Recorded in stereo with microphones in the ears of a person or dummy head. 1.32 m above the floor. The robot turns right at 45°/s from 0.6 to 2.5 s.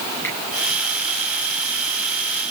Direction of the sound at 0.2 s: 15° left (ahead or behind).